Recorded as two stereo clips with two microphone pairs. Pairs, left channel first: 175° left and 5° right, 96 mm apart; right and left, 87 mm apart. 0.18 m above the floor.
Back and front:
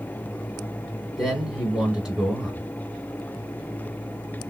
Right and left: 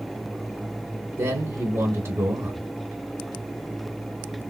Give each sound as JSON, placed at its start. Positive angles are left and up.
{"t": 1.2, "sound": "a man speaking", "azimuth_deg": 70, "distance_m": 1.9}